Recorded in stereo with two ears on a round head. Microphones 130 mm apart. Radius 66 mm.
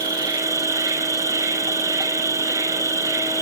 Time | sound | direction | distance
0.0 | an insect | 25° right (ahead or behind) | 1.1 m